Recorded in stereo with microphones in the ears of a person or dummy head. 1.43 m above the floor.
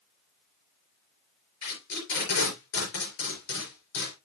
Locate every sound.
1.6 s tape being pulled: 70° left (ahead or behind), 4.5 m